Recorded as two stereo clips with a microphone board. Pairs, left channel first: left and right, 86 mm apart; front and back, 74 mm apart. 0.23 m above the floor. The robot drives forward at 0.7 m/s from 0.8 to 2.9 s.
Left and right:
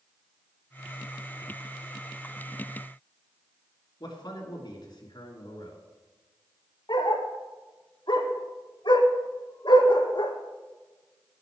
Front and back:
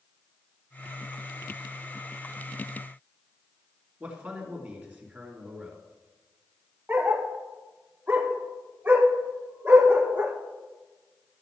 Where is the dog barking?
115° left, 1.3 m.